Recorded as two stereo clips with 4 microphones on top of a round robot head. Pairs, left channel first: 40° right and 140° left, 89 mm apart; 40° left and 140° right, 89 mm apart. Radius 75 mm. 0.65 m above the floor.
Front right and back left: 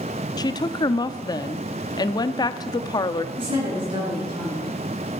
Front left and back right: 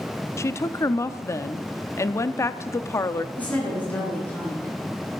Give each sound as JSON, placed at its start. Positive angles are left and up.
{"t": 0.4, "sound": "a woman speaking", "azimuth_deg": -10, "distance_m": 0.8}
{"t": 3.4, "sound": "a woman speaking", "azimuth_deg": 115, "distance_m": 9.5}